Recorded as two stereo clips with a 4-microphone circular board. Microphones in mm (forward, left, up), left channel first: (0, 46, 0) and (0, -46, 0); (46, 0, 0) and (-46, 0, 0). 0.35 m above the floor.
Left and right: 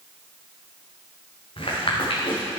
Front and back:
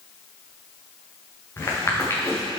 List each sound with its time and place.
1.6 s footsteps: 60° left, 3 m